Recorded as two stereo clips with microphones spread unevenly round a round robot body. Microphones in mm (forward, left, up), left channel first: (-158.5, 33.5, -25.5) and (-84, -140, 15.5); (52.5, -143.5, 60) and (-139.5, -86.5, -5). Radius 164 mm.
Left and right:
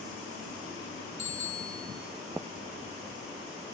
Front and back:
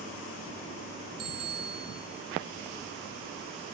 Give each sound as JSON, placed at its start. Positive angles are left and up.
{"t": 1.2, "sound": "a bicycle bell", "azimuth_deg": 130, "distance_m": 4.5}